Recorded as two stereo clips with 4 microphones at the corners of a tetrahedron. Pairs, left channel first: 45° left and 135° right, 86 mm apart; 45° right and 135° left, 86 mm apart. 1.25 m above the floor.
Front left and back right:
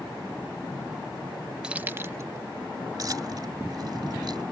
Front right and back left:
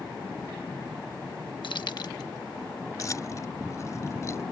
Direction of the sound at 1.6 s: 55° right.